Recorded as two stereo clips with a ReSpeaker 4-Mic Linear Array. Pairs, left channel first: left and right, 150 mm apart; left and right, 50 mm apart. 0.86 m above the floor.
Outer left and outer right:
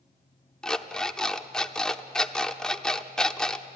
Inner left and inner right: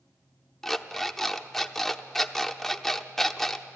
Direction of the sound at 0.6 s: 5° left (ahead or behind).